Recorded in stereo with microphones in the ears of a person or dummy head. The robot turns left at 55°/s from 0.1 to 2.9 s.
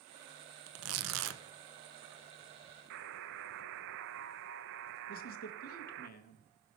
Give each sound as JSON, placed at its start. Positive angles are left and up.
{"t": 0.7, "sound": "tearing paper", "azimuth_deg": -75, "distance_m": 0.8}
{"t": 2.9, "sound": "a buzzer", "side_deg": -70, "distance_m": 0.7}
{"t": 5.1, "sound": "a man speaking", "side_deg": 50, "distance_m": 1.3}